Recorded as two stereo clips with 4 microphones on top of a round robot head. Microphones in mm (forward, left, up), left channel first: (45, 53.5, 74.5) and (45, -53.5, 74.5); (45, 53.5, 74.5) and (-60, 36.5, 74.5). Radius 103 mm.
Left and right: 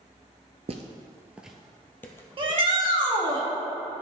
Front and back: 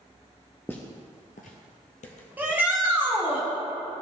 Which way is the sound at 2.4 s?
100° right.